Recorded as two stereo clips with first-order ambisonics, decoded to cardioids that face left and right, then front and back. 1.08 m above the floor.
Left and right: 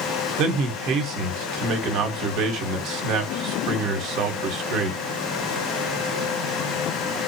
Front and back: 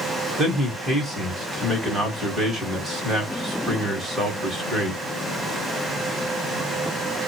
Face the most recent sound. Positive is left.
turn(degrees=-105)